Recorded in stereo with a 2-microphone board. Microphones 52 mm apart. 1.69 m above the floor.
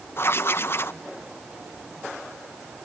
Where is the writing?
50° left (ahead or behind), 0.7 m.